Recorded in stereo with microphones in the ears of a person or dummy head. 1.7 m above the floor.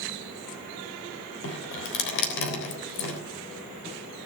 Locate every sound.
1.4 s dripping: 70° left (ahead or behind), 3.5 m